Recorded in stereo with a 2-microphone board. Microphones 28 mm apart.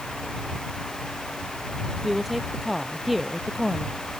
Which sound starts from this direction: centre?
A woman speaking, at 2.0 s.